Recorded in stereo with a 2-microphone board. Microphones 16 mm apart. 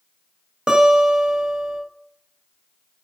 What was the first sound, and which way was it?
A guitar, 65° right (ahead or behind).